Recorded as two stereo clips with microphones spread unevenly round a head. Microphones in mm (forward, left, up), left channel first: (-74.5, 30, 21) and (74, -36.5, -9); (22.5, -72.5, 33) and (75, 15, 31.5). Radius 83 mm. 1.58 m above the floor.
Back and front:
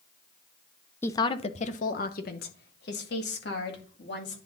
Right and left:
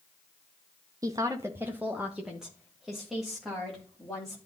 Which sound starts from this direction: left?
A woman speaking, at 1.0 s.